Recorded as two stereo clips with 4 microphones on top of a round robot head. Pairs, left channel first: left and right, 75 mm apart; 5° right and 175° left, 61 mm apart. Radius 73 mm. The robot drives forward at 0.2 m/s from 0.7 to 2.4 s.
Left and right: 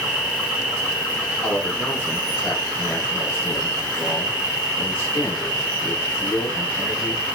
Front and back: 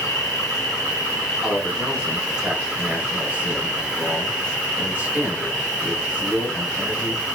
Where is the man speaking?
100° left, 0.8 m; by 7.2 s 130° left, 0.9 m.